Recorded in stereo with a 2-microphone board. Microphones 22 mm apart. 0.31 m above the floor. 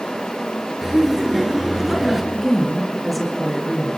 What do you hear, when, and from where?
0.8 s laughter: 20° right (ahead or behind), 5 m; by 2.2 s 15° right (ahead or behind), 4 m
2.3 s a woman speaking: 5° right (ahead or behind), 5.5 m